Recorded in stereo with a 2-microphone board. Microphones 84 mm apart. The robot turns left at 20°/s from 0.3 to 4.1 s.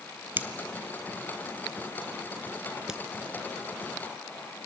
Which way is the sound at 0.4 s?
25° right (ahead or behind).